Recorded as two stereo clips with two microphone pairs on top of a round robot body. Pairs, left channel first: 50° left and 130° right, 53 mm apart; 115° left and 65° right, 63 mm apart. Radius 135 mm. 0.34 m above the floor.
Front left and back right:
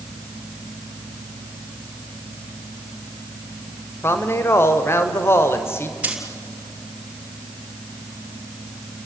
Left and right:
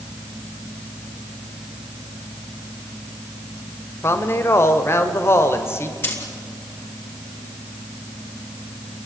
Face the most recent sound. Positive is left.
turn(degrees=165)